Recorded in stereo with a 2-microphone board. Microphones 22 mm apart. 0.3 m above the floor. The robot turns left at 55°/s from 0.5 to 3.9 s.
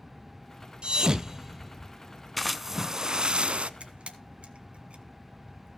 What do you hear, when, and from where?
0.8 s a thud: 50° right (ahead or behind), 0.8 m; by 1.9 s 5° left (ahead or behind), 0.8 m
2.4 s a splash: 5° left, 0.7 m; by 3.7 s 70° right, 0.7 m
3.8 s a camera shutter: 65° right (ahead or behind), 1.9 m